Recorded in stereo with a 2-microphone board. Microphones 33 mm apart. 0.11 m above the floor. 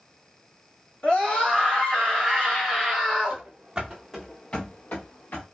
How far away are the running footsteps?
About 0.8 m.